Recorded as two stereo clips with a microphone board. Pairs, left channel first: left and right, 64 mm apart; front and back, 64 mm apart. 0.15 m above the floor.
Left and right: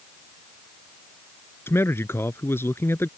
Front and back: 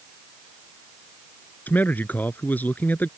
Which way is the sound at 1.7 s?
55° left.